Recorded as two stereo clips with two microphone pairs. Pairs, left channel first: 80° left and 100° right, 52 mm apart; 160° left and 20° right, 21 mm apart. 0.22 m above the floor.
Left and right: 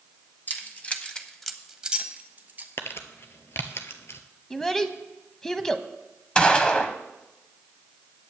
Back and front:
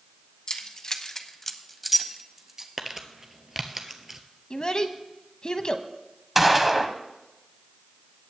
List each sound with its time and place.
0.5 s keys jangling: 120° left, 1.3 m; by 2.7 s 70° right, 1.3 m
2.8 s crumpling: 50° left, 1.1 m
4.5 s a child speaking: 160° left, 0.9 m
6.3 s a gunshot: 35° left, 0.9 m